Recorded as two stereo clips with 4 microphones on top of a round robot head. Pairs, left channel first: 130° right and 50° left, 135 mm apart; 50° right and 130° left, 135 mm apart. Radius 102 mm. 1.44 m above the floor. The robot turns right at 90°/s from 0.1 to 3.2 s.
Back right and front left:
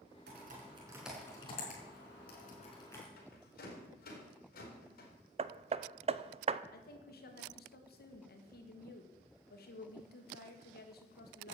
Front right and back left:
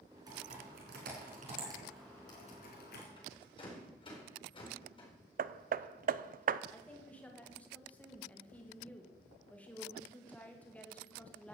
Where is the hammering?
100° left, 0.5 m.